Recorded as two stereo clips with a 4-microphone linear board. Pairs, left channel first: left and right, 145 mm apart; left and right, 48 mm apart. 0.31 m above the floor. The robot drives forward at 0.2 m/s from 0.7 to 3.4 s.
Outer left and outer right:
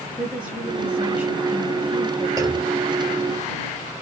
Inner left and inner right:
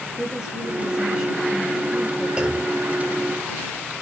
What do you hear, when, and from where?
0.2 s a woman speaking: 10° right (ahead or behind), 1.4 m
2.4 s a clunk: 25° right (ahead or behind), 0.7 m